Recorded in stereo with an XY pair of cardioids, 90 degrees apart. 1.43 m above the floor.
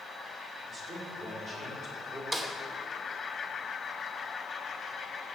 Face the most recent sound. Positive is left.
turn(degrees=-35)